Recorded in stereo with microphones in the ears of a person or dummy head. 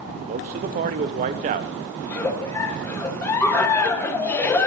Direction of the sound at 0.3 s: 40° right (ahead or behind).